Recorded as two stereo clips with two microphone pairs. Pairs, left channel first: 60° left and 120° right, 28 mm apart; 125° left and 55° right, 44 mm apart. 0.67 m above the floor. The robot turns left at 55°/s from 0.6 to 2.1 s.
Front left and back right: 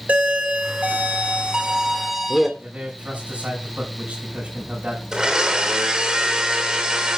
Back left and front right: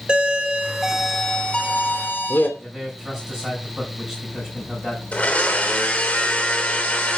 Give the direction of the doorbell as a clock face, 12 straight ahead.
4 o'clock.